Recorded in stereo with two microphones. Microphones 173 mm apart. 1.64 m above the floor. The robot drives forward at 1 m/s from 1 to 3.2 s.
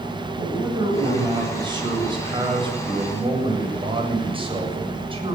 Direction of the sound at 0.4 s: 25° right (ahead or behind).